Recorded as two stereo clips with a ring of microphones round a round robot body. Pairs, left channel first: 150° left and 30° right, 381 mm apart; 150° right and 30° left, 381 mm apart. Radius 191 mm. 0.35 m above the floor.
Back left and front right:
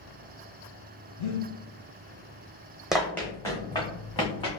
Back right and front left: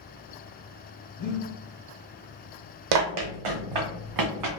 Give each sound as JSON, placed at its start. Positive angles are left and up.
{"t": 1.2, "sound": "breathing", "azimuth_deg": 125, "distance_m": 1.3}
{"t": 2.9, "sound": "running footsteps", "azimuth_deg": 60, "distance_m": 0.8}